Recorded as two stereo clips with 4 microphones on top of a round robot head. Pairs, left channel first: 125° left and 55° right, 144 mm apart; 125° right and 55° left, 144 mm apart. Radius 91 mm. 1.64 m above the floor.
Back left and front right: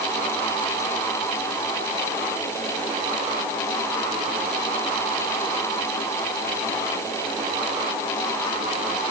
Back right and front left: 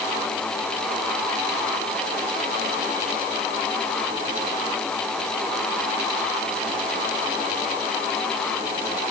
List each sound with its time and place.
Only background noise.